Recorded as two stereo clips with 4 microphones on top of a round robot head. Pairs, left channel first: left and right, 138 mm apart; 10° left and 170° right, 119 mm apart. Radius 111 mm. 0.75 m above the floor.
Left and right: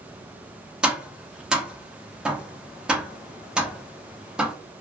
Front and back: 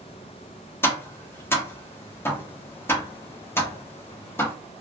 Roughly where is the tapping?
Ahead.